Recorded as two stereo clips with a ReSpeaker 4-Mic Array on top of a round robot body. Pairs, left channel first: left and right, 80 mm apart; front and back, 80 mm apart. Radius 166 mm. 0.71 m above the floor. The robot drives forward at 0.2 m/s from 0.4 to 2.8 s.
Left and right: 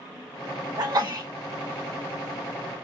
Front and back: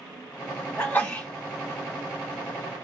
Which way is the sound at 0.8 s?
70° right.